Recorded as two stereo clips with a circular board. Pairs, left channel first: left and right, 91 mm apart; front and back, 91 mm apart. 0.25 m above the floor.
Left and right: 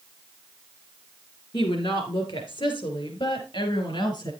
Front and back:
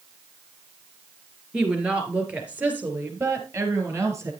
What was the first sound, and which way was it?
A woman speaking, 100° left.